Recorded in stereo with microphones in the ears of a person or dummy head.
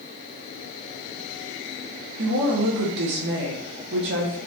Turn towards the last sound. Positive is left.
turn(degrees=-60)  # may be behind; listen again after turning